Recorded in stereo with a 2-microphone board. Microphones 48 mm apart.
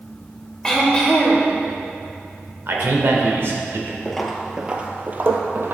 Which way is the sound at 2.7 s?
60° right (ahead or behind).